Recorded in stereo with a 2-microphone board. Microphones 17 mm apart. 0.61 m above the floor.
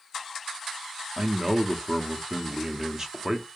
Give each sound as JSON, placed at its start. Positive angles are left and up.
{"t": 1.2, "sound": "a man speaking", "side_deg": -30, "distance_m": 0.8}